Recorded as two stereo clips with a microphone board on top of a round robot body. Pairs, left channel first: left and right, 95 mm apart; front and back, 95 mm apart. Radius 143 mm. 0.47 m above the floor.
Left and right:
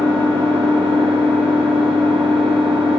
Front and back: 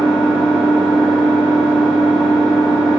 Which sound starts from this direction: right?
An engine running, at 0.0 s.